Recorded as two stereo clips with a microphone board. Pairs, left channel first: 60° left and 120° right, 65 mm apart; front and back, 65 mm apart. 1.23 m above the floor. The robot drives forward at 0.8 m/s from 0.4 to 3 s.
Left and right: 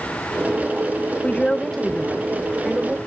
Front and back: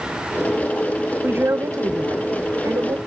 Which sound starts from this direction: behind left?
A woman speaking, at 1.2 s.